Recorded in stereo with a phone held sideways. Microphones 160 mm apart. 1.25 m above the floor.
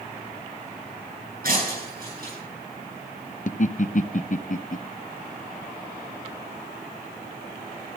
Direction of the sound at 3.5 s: 55° left (ahead or behind).